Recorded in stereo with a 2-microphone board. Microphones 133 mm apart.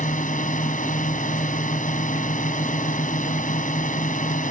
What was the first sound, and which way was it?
A drone, 80° left.